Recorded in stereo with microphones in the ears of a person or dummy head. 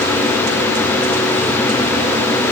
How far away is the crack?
I don't hear a crack.